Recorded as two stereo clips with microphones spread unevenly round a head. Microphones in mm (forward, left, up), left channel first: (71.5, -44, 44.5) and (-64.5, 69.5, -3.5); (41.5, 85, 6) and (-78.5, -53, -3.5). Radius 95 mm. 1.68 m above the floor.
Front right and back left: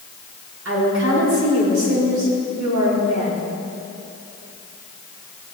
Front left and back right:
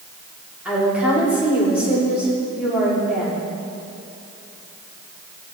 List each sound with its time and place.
0.7 s a woman speaking: 145° left, 5.5 m